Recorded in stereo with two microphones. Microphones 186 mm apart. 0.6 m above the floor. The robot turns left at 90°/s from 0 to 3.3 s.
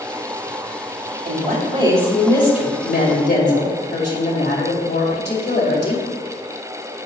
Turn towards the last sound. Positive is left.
turn(degrees=75)